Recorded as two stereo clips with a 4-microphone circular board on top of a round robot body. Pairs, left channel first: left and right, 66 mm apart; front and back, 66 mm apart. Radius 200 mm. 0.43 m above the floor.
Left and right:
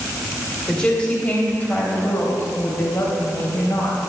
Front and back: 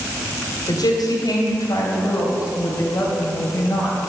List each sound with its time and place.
0.7 s a woman speaking: 15° left, 3.5 m; by 4.0 s 55° left, 4.5 m